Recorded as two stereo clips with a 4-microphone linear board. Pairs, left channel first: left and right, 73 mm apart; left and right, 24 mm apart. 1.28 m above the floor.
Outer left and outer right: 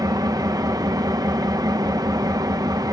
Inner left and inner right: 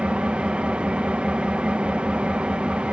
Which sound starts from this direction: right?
An engine running, at 0.0 s.